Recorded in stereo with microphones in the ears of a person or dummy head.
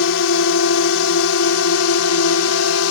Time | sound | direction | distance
0.0 | a drone | 65° left (ahead or behind) | ?